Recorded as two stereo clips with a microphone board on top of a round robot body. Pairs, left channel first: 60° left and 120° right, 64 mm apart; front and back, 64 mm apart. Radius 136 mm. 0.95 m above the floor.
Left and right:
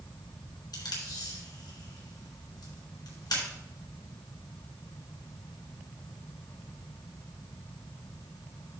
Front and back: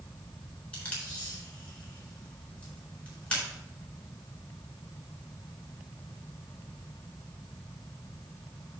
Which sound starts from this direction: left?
Tape being pulled, at 0.7 s.